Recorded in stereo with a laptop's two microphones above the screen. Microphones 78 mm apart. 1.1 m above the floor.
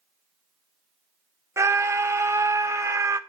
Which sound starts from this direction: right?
A scream, at 1.6 s.